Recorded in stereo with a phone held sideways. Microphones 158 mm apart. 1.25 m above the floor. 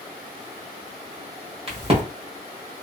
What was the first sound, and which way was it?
A crack, 35° right (ahead or behind).